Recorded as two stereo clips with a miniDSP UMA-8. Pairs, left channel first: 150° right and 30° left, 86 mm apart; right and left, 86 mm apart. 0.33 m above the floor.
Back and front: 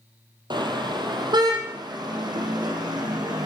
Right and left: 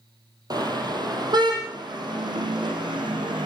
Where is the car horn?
55° left, 4.5 m; by 3.5 s 65° left, 7.5 m.